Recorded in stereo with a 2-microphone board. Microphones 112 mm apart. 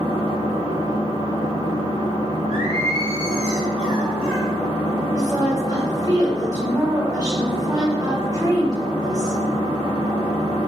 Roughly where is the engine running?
Left.